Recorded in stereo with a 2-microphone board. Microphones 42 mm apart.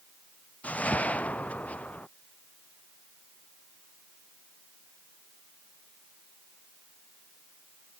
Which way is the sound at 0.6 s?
35° left (ahead or behind).